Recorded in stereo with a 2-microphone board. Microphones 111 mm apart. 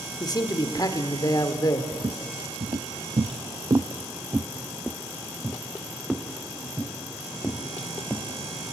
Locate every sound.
0.2 s a man speaking: 35° left (ahead or behind), 1.6 m
1.9 s footsteps: 45° right (ahead or behind), 1.1 m; by 8.3 s 10° left (ahead or behind), 3 m